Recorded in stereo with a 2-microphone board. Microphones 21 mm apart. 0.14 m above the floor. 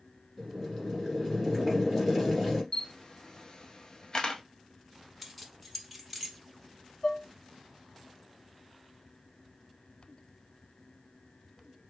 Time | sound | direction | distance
0.4 | boiling | 10° left (ahead or behind) | 2 m
2.7 | a camera shutter | 35° left (ahead or behind) | 0.7 m
5.2 | keys jangling | centre (ahead or behind) | 0.8 m
7.0 | dishes clattering | 40° left (ahead or behind) | 1.0 m